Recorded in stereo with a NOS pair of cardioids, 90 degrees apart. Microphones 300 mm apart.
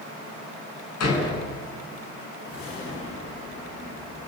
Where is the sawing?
I don't hear sawing.